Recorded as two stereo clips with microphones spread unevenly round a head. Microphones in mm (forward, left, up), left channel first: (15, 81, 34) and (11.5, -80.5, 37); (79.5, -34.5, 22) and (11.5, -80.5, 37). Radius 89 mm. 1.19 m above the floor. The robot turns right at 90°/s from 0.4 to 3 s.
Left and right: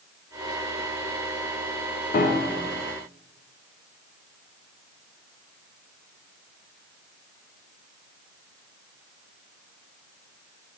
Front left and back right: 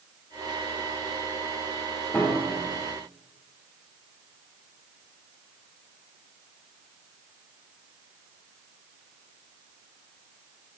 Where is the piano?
110° left, 0.8 m; by 2.8 s 170° left, 0.8 m.